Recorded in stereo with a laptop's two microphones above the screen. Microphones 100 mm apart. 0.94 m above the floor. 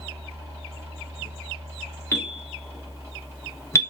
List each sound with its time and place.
0.0 s a fan: 30° right (ahead or behind), 0.8 m
2.1 s a bell: 25° left (ahead or behind), 0.6 m